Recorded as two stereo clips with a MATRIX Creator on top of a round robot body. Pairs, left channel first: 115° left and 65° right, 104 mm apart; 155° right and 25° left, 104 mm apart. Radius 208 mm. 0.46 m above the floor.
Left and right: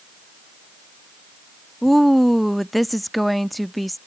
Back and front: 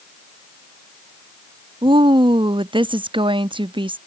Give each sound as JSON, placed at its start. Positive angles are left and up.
{"t": 1.8, "sound": "a woman speaking", "azimuth_deg": 25}